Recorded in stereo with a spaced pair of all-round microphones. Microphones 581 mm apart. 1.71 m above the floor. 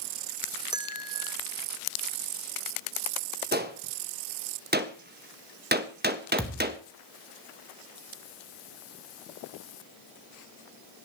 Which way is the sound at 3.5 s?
15° right (ahead or behind).